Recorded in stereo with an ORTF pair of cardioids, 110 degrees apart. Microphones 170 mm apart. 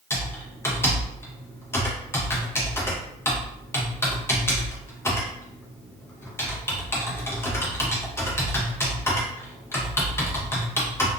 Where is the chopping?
I don't hear chopping.